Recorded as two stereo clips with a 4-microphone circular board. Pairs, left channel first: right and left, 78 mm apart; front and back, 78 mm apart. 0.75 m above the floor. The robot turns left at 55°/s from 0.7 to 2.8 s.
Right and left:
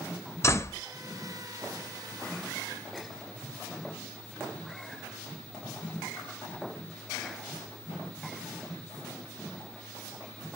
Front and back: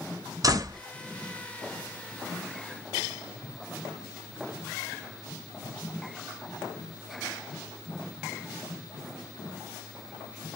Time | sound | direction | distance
0.4 | a door slam | 140° right | 0.5 m